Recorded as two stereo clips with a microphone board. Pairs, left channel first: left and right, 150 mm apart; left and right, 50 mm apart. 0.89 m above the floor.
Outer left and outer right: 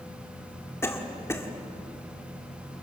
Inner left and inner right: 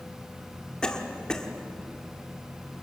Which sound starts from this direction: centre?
A cough, at 0.8 s.